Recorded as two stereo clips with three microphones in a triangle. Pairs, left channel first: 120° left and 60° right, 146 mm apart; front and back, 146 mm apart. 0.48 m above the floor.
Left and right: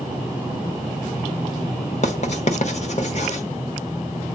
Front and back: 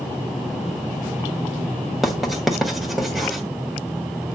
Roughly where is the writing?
Left.